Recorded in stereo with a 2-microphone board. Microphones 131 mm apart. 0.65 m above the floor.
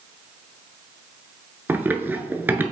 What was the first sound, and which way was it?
Running footsteps, 15° right (ahead or behind).